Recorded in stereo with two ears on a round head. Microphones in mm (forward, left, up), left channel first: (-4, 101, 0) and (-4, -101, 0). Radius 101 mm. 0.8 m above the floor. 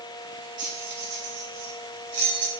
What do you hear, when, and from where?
0.6 s keys jangling: 35° right (ahead or behind), 1.3 m; by 2.5 s 75° right (ahead or behind), 1.6 m